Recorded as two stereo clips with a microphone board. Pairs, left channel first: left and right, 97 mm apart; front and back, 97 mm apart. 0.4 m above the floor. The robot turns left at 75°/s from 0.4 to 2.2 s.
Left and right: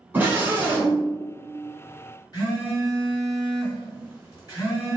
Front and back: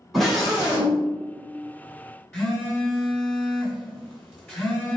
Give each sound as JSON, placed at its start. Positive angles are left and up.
{"t": 0.1, "sound": "a scream", "azimuth_deg": -90, "distance_m": 1.2}
{"t": 2.3, "sound": "a phone buzzing", "azimuth_deg": 70, "distance_m": 1.9}